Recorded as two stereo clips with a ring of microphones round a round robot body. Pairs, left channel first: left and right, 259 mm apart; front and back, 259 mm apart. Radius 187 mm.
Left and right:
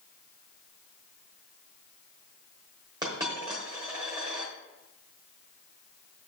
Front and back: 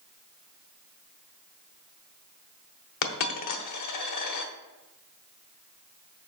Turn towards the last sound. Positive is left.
turn(degrees=-10)